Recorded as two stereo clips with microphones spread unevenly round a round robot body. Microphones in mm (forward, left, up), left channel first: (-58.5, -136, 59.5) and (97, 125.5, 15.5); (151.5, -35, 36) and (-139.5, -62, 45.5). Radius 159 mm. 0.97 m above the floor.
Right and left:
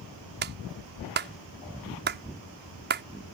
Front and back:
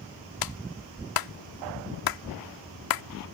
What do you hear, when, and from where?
0.4 s a clap: straight ahead